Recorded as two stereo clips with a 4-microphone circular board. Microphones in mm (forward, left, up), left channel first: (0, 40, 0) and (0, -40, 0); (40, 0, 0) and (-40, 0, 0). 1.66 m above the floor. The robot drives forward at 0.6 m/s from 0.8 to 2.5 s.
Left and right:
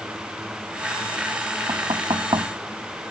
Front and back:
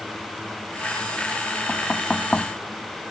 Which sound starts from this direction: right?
Knocking, at 1.7 s.